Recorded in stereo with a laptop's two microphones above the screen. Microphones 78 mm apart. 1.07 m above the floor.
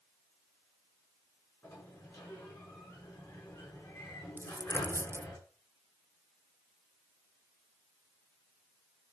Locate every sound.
1.6 s a sliding door: 50° left (ahead or behind), 9.5 m
4.4 s a dropped coin: 35° right (ahead or behind), 0.6 m